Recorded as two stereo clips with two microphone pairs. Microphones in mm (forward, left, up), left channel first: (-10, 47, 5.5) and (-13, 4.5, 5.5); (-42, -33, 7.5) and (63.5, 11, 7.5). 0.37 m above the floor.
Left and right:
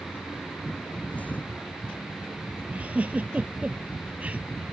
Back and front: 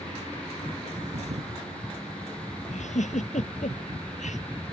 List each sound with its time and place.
1.1 s a thud: 35° left
2.7 s a giggle: 150° right